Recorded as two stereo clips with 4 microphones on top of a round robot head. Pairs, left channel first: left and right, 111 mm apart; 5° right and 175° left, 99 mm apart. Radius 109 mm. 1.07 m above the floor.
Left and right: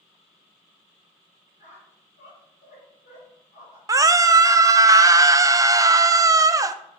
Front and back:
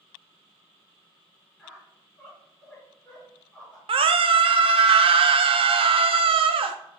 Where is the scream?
150° right, 0.6 m.